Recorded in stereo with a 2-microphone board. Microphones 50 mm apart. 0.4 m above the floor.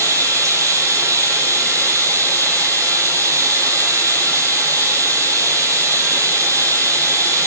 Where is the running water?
85° right, 8 m.